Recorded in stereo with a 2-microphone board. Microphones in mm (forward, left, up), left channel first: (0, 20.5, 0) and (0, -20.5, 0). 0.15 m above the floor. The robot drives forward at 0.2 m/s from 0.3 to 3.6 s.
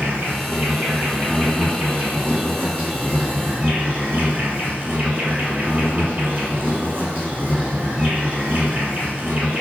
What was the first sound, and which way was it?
An insect, 85° right.